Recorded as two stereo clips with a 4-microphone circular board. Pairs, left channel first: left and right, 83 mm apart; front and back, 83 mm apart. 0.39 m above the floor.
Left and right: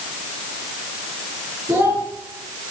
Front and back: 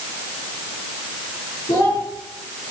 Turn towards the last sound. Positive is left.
turn(degrees=-30)